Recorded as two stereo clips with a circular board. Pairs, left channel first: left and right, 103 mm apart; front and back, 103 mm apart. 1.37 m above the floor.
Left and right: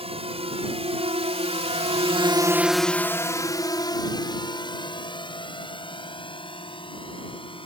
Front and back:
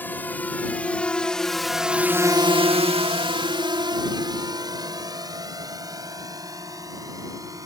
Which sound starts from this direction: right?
A drone, at 0.0 s.